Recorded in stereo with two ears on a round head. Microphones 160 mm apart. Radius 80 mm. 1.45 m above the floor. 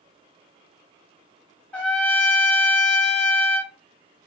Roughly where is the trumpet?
Centre.